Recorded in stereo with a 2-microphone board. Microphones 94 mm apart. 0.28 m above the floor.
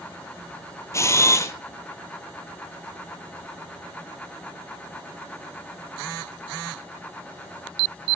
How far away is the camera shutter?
About 1.1 m.